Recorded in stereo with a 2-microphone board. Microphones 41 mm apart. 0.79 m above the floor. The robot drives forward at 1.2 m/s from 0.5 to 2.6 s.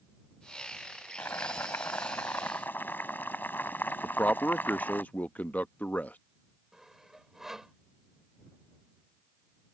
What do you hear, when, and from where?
1.2 s boiling: 70° left (ahead or behind); by 5.0 s 55° left (ahead or behind)
4.0 s a man speaking: 40° left (ahead or behind)
6.7 s sawing: 10° right (ahead or behind)